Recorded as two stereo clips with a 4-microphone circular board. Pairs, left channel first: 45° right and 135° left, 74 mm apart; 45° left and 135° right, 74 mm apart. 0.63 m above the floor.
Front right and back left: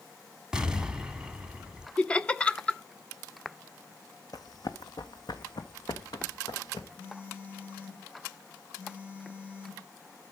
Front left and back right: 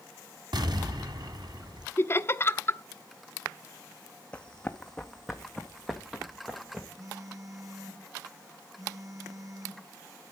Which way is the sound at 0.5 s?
145° right.